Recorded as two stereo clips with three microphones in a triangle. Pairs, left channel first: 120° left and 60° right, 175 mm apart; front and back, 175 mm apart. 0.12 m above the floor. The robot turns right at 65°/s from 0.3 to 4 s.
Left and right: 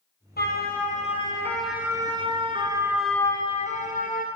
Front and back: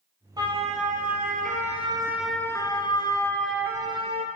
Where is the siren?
115° left, 4 m; by 4.3 s 140° left, 2.5 m.